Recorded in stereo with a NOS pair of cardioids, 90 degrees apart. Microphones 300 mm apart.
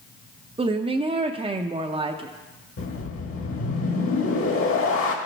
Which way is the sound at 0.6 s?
20° right.